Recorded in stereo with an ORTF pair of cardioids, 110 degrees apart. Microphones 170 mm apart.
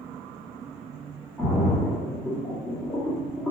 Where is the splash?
5° left, 1.4 m.